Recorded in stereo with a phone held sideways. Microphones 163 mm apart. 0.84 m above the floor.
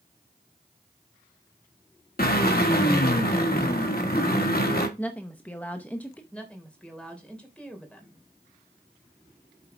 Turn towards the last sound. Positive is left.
turn(degrees=5)  # may be behind; listen again after turning